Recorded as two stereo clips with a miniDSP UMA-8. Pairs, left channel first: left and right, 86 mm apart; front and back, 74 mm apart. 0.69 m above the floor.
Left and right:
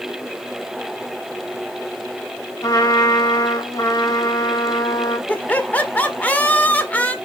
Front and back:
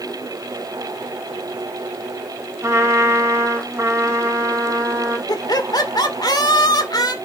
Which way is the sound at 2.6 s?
135° left.